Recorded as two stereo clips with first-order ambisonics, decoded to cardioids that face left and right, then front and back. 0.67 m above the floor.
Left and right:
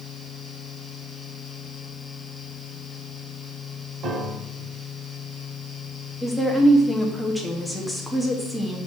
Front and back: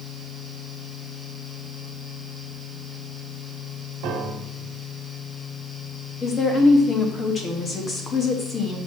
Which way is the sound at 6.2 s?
5° left.